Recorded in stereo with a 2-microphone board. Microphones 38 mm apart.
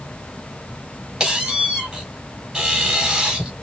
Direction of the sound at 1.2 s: 15° right (ahead or behind).